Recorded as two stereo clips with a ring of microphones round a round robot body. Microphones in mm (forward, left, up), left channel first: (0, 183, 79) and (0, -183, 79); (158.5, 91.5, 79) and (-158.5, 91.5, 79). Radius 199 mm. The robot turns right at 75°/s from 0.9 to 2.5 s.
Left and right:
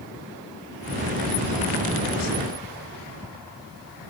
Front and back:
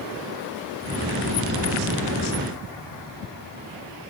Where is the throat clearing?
No throat clearing in this recording.